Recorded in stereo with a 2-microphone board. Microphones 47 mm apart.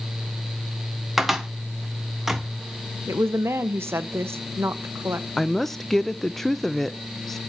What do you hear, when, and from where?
1.2 s a cupboard door: 5° right (ahead or behind), 1.0 m
3.1 s a woman speaking: 65° right (ahead or behind), 0.7 m
5.4 s a woman speaking: 5° left (ahead or behind), 0.6 m